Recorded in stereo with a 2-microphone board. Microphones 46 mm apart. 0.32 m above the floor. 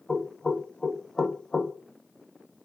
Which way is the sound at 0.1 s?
15° left (ahead or behind).